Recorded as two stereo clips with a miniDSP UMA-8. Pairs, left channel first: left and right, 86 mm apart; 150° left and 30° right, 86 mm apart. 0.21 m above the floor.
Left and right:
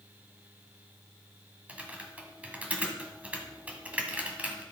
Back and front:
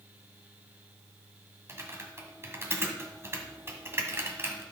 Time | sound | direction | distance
1.7 | typing on a keyboard | 35° right | 1.8 m